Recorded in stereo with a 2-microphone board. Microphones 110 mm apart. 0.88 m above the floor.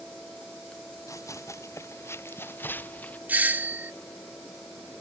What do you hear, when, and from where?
1.1 s running footsteps: 30° left (ahead or behind); by 3.2 s 15° left (ahead or behind)
3.3 s a doorbell: 15° right (ahead or behind)